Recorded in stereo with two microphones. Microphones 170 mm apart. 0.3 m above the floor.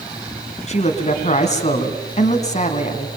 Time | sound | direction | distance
0.7 | a man speaking | 40° left (ahead or behind) | 3 m